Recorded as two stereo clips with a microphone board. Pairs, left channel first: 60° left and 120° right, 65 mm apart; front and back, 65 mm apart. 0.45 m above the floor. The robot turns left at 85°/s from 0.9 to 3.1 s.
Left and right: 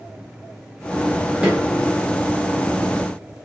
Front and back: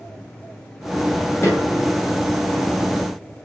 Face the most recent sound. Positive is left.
turn(degrees=165)